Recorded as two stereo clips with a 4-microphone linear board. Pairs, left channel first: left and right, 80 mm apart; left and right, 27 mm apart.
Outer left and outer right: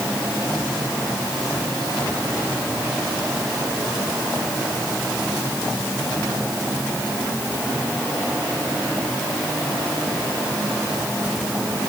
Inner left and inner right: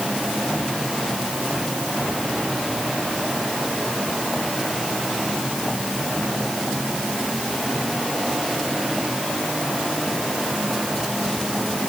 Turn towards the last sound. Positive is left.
No sound to turn to.